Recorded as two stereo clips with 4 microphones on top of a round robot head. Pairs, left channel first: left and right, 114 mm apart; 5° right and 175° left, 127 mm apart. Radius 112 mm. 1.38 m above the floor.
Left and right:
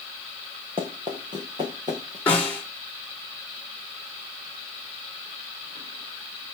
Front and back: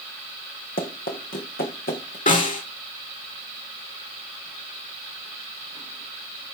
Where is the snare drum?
10° left, 5 m.